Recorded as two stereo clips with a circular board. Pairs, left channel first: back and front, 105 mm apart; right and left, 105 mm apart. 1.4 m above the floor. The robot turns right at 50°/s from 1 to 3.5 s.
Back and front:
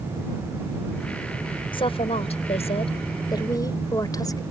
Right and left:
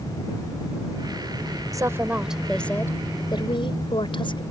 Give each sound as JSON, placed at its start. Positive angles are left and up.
{"t": 1.7, "sound": "a woman speaking", "azimuth_deg": 145}